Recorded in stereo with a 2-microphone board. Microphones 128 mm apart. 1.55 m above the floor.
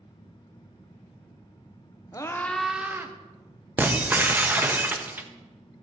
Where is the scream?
30° left (ahead or behind), 0.9 m; by 3.1 s 25° right (ahead or behind), 1.0 m.